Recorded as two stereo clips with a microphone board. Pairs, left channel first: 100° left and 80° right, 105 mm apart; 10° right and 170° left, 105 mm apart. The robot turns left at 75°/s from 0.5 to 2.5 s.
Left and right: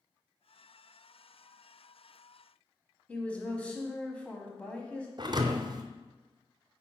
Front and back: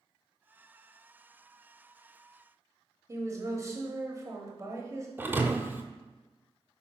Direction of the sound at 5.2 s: 120° right.